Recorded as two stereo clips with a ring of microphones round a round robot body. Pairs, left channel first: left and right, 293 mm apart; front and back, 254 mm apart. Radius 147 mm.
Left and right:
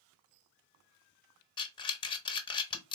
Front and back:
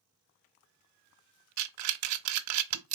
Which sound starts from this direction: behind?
Breathing, at 1.6 s.